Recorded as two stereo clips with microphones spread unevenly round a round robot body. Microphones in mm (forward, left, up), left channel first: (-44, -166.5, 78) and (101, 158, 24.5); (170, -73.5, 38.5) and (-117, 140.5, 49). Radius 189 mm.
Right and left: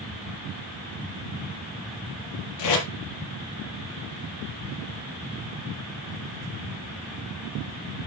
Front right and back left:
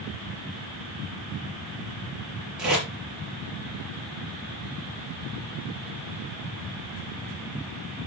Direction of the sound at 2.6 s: 130° right.